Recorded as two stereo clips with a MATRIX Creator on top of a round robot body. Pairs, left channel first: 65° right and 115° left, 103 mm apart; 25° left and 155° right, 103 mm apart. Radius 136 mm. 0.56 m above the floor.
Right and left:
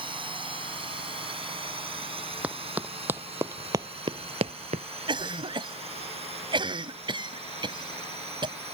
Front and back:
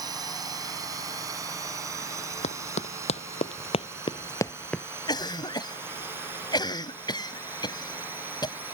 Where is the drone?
150° left; by 8.7 s 130° left.